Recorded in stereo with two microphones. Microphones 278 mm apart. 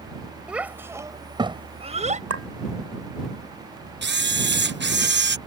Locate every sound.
0.5 s a child speaking: 5° right (ahead or behind); by 2.2 s 30° right (ahead or behind)
2.3 s a clink: 60° right (ahead or behind)
4.0 s a camera shutter: 40° right (ahead or behind)